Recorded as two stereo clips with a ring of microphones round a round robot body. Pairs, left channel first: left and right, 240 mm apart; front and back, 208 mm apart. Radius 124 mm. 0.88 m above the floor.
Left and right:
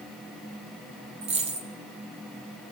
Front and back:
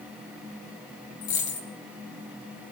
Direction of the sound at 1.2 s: 30° right.